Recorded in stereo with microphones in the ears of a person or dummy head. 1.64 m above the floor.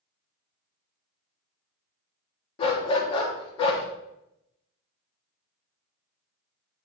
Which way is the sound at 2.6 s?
30° left (ahead or behind).